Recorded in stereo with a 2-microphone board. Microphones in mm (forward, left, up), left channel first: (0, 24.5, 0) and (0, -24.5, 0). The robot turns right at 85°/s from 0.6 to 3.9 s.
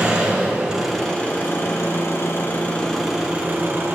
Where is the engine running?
25° right, 2.5 m; by 4.0 s 105° right, 2.5 m.